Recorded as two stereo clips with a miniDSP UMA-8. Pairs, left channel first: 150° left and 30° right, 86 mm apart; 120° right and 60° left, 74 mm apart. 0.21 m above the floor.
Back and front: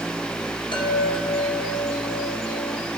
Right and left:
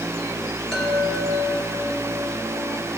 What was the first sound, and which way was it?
A chime, 155° left.